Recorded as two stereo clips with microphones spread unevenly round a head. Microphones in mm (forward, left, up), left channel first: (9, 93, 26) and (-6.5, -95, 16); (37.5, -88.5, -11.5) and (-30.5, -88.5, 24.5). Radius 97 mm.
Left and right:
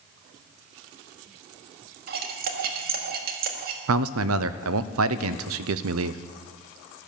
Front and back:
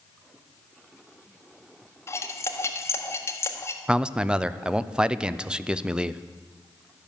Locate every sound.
2.1 s cutlery clinking: 65° right, 1.5 m
3.9 s a man speaking: 110° right, 0.7 m